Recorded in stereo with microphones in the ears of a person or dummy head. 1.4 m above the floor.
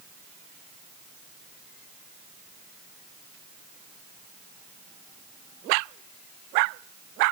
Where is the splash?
No splash in this recording.